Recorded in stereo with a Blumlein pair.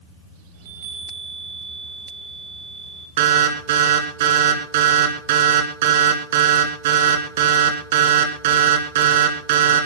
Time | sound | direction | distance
0.5 | a chime | 55° right | 6 m
3.2 | an alarm | 55° right | 3 m